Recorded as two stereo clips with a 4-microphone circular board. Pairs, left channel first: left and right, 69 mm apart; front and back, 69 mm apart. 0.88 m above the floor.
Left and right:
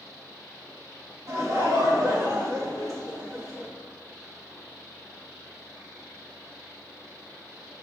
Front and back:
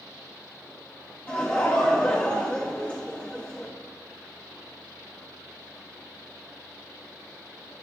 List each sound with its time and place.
1.3 s laughter: 65° right, 1.7 m